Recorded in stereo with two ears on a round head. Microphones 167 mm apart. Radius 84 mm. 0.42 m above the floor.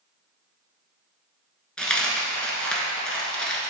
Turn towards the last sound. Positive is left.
turn(degrees=5)  # may be behind; listen again after turning